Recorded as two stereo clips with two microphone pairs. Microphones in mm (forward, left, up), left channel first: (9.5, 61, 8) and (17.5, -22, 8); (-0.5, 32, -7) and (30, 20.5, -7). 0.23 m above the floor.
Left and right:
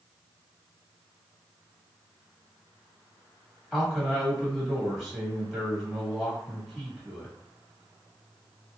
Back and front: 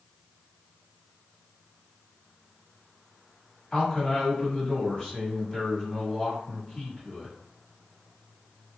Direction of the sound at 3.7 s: 175° right.